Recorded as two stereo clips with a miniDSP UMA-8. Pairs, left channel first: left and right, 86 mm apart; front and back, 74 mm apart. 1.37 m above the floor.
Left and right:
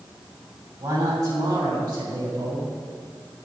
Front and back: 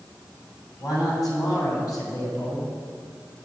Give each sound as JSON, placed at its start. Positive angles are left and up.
{"t": 0.8, "sound": "a man speaking", "azimuth_deg": -40, "distance_m": 7.0}